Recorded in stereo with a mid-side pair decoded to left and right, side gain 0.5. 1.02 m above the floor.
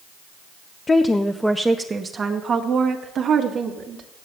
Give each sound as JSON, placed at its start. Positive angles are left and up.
{"t": 0.9, "sound": "a woman speaking", "azimuth_deg": 30, "distance_m": 0.7}